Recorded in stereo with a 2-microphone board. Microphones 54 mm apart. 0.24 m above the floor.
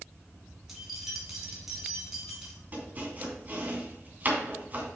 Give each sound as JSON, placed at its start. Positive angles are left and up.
{"t": 0.7, "sound": "keys jangling", "side_deg": -10, "distance_m": 1.7}
{"t": 2.7, "sound": "chopping", "side_deg": -35, "distance_m": 2.5}